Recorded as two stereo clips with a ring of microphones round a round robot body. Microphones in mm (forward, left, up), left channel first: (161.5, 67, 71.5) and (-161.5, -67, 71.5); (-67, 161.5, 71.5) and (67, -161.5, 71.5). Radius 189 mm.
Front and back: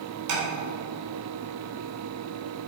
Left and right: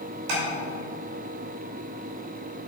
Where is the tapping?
115° right, 2.5 m.